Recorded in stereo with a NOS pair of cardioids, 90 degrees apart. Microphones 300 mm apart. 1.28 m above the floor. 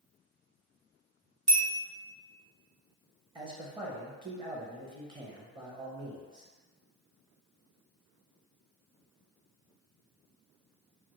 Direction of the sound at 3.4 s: 15° right.